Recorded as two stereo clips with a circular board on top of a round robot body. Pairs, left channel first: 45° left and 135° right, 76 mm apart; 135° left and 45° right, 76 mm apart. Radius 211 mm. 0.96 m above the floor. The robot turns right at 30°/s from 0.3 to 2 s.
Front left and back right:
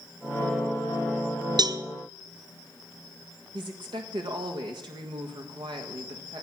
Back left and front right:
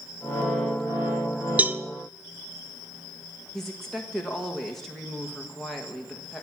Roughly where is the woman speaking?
Behind right.